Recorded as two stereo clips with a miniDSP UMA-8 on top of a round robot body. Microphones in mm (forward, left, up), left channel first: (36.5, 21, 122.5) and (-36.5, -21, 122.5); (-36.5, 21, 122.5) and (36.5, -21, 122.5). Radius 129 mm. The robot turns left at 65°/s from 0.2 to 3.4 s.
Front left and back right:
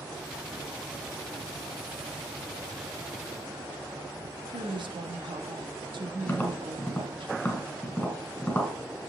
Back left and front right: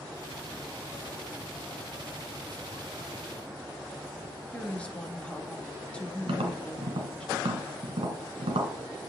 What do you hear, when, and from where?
4.5 s a woman speaking: 135° right, 1.7 m
6.3 s tapping: 45° right, 2.0 m